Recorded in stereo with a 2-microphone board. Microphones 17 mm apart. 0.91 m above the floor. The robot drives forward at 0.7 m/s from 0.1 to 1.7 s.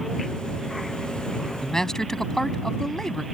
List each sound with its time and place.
1.6 s a man speaking: 30° left (ahead or behind)